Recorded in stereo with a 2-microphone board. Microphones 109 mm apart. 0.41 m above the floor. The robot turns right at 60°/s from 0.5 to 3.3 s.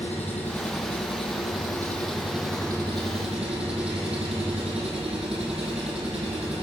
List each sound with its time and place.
0.0 s an engine running: 80° left, 8.5 m; by 6.6 s 110° right, 8.5 m